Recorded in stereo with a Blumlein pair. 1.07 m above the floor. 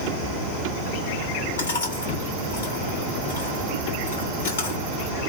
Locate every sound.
1.6 s chewing: 70° left, 1.9 m